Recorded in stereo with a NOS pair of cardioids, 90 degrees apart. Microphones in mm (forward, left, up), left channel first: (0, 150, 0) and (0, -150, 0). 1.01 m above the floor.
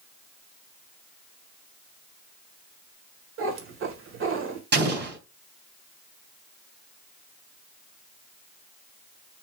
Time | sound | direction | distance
3.4 | a cat meowing | 45° right | 1.6 m
4.7 | an explosion | 35° right | 3 m